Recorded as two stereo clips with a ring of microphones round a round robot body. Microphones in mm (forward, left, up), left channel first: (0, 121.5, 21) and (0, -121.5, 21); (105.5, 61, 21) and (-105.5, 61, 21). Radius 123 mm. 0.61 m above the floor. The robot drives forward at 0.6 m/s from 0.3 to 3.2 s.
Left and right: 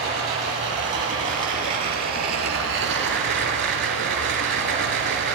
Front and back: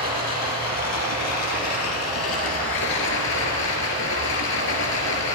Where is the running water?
25° right, 3.5 m; by 5.3 s 45° right, 2 m.